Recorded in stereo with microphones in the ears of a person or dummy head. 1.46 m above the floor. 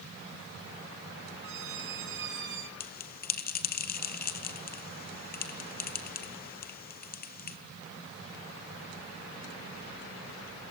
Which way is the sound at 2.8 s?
45° left (ahead or behind).